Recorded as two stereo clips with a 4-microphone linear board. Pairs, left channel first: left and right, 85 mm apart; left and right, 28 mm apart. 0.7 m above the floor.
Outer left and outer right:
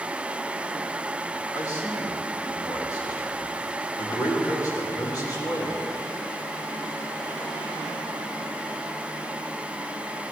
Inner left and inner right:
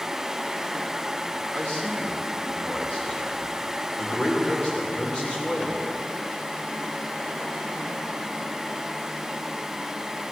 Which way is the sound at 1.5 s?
45° left (ahead or behind).